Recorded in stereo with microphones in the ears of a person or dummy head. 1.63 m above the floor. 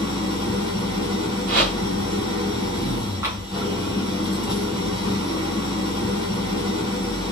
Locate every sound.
0.0 s an engine running: 30° right (ahead or behind), 2 m
1.5 s a whoosh: 60° right (ahead or behind), 2.0 m
3.2 s tapping: 15° right (ahead or behind), 1.0 m